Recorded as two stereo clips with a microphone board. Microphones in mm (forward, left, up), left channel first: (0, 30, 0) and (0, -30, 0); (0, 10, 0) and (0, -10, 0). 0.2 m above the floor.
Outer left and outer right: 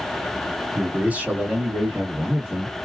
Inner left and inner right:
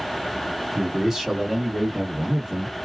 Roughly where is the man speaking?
Right.